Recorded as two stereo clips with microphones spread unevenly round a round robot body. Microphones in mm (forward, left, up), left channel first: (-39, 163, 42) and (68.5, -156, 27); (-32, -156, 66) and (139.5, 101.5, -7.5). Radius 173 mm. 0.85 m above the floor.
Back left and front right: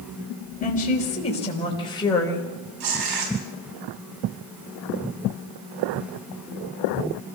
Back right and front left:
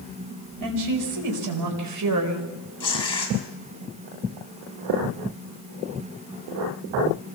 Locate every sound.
0.6 s a woman speaking: 40° left, 4.5 m; by 2.5 s 25° left, 4 m
2.8 s tearing paper: 50° right, 5.5 m